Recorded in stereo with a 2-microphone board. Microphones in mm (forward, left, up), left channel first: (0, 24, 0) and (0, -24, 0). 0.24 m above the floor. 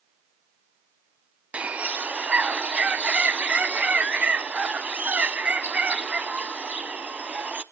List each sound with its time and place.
1.5 s a bird: 30° right (ahead or behind), 0.5 m